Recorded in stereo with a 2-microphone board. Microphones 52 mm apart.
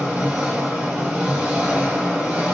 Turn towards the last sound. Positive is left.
turn(degrees=-20)  # may be behind; listen again after turning